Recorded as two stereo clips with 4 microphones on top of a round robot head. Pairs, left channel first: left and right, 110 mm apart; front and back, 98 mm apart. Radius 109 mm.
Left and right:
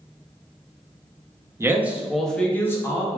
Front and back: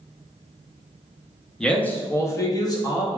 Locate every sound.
1.6 s a man speaking: 70° right, 0.7 m; by 3.2 s 35° left, 1.0 m